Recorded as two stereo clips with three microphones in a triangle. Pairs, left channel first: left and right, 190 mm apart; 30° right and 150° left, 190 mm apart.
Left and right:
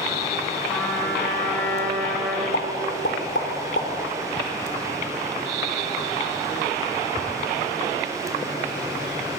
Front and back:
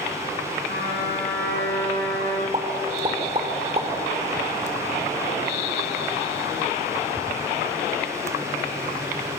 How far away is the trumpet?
About 7 m.